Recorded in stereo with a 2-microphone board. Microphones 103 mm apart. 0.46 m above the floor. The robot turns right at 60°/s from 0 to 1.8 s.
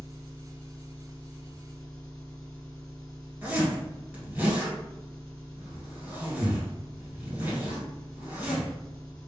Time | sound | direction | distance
0.0 | an engine running | 30° left | 1.7 m
3.4 | a zipper | 20° right (ahead or behind) | 2.0 m